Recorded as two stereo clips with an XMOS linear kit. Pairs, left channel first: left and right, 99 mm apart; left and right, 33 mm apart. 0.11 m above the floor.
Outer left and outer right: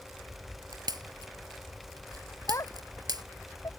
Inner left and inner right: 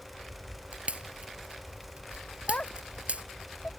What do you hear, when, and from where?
0.7 s a pop: 45° right (ahead or behind)
2.5 s a child speaking: 30° left (ahead or behind)